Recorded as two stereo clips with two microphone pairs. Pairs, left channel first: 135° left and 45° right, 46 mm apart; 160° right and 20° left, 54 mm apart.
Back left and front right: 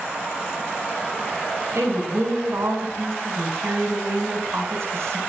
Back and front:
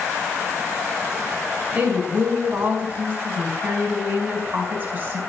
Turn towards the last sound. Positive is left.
turn(degrees=-30)